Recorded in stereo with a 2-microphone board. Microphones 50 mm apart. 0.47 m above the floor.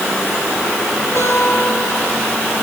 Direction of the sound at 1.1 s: 85° right.